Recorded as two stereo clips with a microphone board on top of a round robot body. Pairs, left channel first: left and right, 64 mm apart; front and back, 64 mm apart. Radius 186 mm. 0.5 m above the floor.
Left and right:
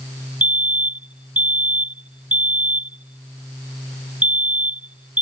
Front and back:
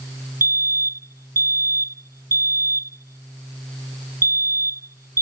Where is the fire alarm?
150° right.